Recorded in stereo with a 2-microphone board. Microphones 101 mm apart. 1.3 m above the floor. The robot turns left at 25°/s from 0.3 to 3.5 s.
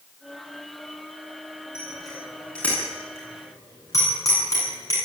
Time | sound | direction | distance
1.8 | a bicycle bell | 10° right (ahead or behind) | 9.5 m